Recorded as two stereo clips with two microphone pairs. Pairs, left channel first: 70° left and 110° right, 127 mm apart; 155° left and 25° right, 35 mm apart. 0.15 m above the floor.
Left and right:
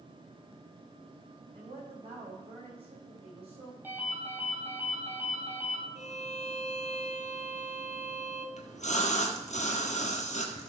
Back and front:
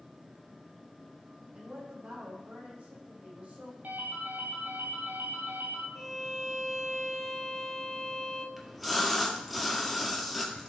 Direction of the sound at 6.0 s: 60° left.